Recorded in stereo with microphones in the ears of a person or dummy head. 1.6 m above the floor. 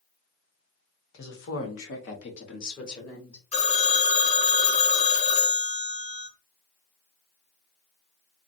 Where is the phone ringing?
45° left (ahead or behind), 1.6 m.